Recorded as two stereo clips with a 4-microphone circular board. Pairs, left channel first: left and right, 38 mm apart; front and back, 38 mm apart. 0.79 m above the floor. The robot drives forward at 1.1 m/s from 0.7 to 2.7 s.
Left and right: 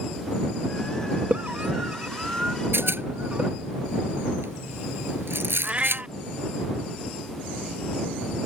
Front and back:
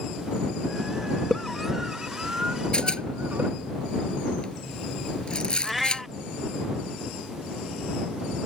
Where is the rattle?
65° right.